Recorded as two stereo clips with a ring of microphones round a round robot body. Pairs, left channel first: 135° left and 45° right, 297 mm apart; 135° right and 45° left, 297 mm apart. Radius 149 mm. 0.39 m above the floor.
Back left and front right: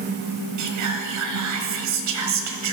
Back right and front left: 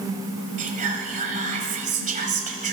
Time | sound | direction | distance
0.6 | whispering | 20° right | 1.8 m